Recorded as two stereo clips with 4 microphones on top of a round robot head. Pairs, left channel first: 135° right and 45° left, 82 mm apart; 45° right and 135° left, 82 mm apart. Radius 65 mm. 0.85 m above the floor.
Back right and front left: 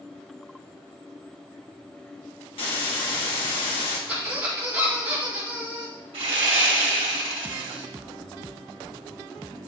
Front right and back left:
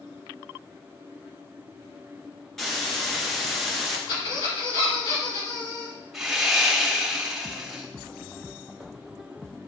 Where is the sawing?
50° left, 1.5 m.